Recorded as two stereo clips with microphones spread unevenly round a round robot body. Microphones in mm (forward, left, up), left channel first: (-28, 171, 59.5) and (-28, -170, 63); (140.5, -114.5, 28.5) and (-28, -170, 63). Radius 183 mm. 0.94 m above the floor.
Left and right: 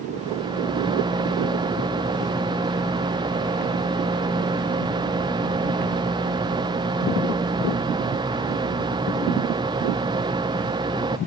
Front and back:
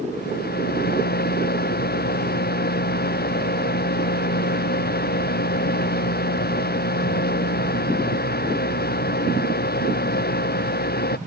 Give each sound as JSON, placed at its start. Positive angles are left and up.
{"t": 0.1, "sound": "a rattle", "azimuth_deg": -10}